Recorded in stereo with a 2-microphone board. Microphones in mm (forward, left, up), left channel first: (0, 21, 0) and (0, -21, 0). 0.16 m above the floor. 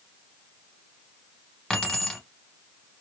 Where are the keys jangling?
15° left (ahead or behind), 1.1 m.